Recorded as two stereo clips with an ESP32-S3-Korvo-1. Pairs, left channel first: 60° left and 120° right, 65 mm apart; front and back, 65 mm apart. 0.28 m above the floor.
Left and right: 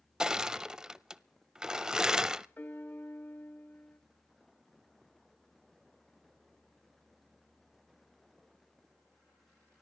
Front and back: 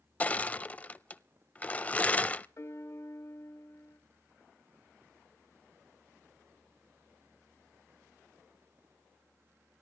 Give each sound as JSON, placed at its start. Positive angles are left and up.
{"t": 0.2, "sound": "crushing", "azimuth_deg": -50, "distance_m": 0.5}
{"t": 2.6, "sound": "a piano", "azimuth_deg": 10, "distance_m": 1.3}